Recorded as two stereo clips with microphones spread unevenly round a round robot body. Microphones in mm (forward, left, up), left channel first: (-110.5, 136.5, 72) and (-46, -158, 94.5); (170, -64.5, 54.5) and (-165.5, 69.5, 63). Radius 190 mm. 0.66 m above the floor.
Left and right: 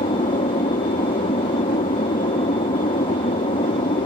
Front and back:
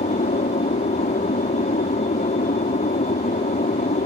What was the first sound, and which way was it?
An aircraft, 40° left.